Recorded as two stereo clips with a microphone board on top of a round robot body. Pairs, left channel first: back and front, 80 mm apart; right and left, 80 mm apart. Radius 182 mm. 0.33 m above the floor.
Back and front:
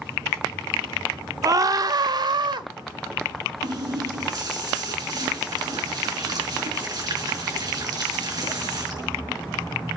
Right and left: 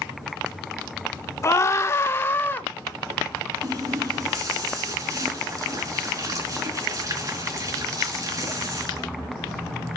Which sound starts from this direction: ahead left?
A running tap, at 3.6 s.